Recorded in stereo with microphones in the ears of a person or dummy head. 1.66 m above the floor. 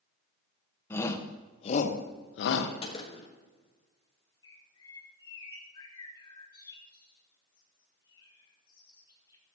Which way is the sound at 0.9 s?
15° left (ahead or behind).